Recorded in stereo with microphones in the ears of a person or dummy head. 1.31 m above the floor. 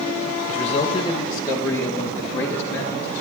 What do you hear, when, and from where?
0.5 s a man speaking: 40° left (ahead or behind), 0.8 m; by 3.2 s 10° left (ahead or behind), 3.5 m